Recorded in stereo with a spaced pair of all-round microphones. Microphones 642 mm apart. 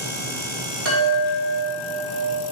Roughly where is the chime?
Right.